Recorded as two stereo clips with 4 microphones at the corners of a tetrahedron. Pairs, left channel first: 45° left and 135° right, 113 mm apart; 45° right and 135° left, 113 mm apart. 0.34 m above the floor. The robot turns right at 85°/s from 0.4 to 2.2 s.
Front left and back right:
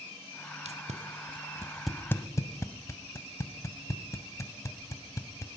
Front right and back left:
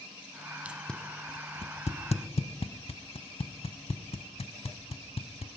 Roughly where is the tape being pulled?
Behind right.